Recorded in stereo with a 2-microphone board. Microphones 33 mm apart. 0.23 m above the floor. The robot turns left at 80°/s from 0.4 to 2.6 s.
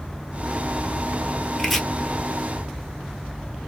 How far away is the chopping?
About 0.8 m.